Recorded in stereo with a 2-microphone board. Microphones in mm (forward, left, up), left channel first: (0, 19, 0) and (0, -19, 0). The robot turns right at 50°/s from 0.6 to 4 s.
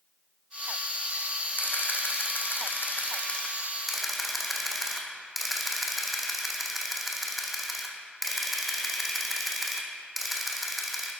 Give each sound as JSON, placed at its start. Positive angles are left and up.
{"t": 1.6, "sound": "a camera shutter", "azimuth_deg": 60, "distance_m": 1.6}